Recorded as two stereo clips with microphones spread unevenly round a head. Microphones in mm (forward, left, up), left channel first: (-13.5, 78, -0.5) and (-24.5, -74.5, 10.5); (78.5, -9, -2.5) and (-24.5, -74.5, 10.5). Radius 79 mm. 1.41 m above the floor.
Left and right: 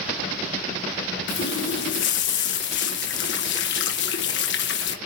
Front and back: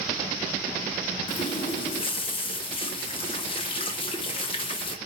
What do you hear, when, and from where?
1.3 s a running tap: 95° left, 0.9 m